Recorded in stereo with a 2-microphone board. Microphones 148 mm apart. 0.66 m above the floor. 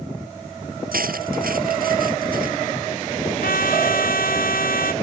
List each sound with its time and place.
0.9 s cutlery clinking: 75° right (ahead or behind)
3.4 s a trumpet: 75° left (ahead or behind)